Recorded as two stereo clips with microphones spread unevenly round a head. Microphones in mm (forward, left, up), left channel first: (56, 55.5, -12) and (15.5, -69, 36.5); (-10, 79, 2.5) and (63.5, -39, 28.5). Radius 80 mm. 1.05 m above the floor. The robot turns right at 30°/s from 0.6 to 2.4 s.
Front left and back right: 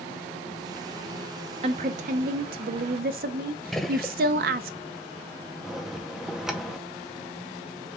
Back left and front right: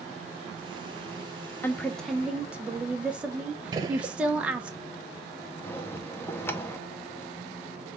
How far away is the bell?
About 0.6 m.